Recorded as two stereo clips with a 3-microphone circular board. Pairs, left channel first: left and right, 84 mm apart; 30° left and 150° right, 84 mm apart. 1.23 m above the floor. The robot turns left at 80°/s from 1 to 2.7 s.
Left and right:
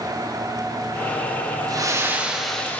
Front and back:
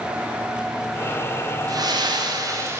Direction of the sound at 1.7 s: 120° right.